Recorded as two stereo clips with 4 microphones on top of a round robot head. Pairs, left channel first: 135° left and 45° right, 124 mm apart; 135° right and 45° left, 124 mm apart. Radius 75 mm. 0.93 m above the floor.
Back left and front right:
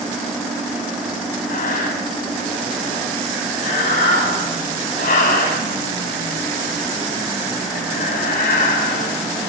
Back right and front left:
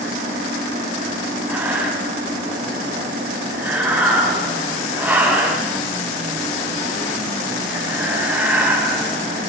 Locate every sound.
1.5 s breathing: 120° left, 7.5 m